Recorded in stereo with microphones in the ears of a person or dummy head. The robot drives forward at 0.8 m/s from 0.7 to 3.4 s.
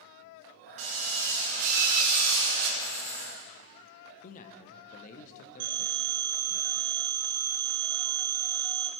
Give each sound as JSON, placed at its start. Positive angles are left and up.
{"t": 0.8, "sound": "a drill", "side_deg": -40, "distance_m": 3.0}
{"t": 2.8, "sound": "a hiss", "side_deg": 5, "distance_m": 3.5}
{"t": 4.2, "sound": "a man speaking", "side_deg": 45, "distance_m": 0.6}
{"t": 5.6, "sound": "a phone ringing", "side_deg": -55, "distance_m": 1.6}